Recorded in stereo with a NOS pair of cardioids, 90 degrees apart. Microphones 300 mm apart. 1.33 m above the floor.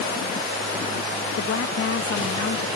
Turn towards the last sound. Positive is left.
turn(degrees=50)